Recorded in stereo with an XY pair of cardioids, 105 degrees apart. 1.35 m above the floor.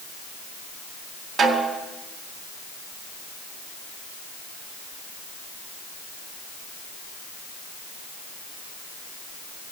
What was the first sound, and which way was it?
A snare drum, 60° right.